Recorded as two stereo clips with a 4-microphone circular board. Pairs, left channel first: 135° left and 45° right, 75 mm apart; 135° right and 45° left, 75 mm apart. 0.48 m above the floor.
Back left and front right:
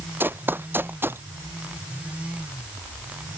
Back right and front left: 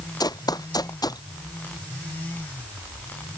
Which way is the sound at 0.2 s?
110° right.